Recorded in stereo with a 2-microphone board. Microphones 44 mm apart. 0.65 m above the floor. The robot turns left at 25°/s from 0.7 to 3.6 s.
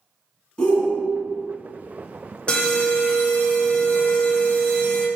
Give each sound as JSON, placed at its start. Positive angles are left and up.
{"t": 0.6, "sound": "a shout", "side_deg": 20, "distance_m": 1.3}
{"t": 2.5, "sound": "an alarm", "side_deg": 25, "distance_m": 0.6}